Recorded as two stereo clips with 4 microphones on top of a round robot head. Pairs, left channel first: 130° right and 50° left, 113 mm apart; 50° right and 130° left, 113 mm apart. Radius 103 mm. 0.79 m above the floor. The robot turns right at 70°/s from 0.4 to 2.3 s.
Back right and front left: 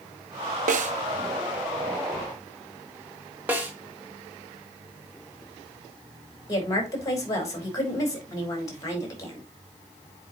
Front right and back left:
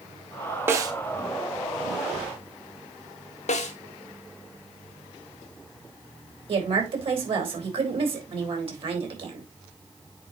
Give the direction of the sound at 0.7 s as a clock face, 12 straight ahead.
10 o'clock.